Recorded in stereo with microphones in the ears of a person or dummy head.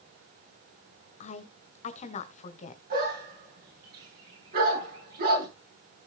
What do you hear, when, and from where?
1.2 s a woman speaking: 40° left (ahead or behind), 1.7 m
2.9 s a dog barking: 55° right (ahead or behind), 8 m